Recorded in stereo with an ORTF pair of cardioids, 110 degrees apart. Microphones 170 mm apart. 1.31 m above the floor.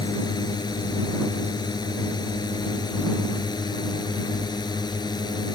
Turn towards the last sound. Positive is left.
turn(degrees=25)